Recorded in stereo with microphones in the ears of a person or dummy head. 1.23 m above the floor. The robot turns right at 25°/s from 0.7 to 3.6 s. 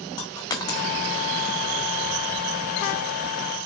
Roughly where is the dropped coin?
Left.